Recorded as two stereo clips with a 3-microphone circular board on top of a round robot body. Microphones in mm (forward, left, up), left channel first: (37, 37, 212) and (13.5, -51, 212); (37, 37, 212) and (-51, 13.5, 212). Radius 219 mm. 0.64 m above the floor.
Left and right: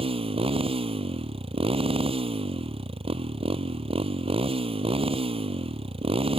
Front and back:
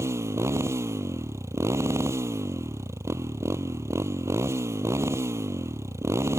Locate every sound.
0.0 s a motorcycle: 105° right